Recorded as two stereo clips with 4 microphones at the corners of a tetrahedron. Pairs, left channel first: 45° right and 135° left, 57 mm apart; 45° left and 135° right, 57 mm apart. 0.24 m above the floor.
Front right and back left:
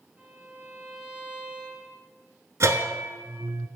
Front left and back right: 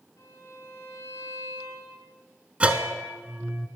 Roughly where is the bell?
Behind.